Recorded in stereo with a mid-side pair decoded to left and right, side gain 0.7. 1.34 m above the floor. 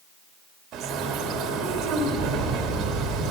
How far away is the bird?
About 2.5 m.